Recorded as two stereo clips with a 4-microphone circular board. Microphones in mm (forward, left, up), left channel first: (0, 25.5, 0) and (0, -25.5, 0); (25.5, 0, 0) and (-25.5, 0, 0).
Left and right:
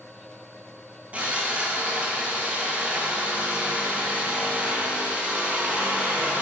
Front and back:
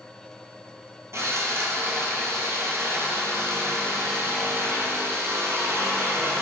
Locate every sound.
1.1 s sawing: 155° right, 0.7 m